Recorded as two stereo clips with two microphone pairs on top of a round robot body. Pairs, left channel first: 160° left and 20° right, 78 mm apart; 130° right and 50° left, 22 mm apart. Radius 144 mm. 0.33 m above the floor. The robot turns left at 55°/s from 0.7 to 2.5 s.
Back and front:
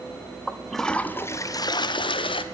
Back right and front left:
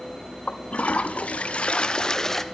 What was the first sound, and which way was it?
A toilet flushing, 110° right.